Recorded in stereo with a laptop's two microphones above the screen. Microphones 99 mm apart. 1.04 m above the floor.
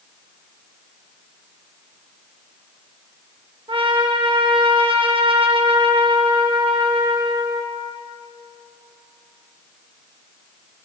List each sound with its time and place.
3.7 s a trumpet: 60° right (ahead or behind), 1.4 m